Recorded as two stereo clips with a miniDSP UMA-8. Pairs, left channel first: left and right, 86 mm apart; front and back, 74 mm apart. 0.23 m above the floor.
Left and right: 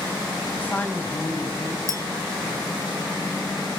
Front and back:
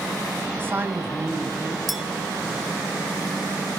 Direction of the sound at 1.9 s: 95° right.